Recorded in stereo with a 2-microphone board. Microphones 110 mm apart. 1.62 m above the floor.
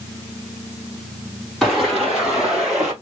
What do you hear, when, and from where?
1.6 s footsteps: centre (ahead or behind), 2.5 m